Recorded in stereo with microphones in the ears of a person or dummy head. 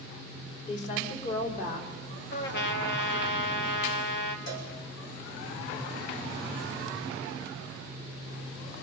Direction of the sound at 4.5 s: 55° left (ahead or behind).